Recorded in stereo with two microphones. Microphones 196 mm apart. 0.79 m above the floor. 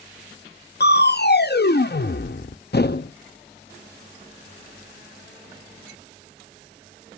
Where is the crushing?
55° left (ahead or behind), 0.5 m.